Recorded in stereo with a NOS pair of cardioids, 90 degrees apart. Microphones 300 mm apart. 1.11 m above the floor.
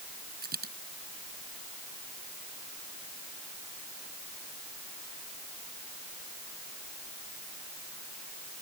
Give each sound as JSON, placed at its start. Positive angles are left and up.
{"t": 0.4, "sound": "a dropped coin", "azimuth_deg": -30}